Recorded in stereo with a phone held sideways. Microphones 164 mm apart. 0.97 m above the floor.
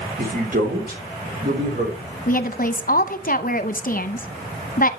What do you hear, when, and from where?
0.2 s a man speaking: 70° right (ahead or behind), 3 m
2.3 s a woman speaking: 60° left (ahead or behind), 0.8 m